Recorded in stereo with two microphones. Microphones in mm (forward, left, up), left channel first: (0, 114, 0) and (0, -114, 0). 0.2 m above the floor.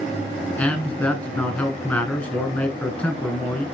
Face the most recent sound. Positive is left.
turn(degrees=5)  # may be behind; listen again after turning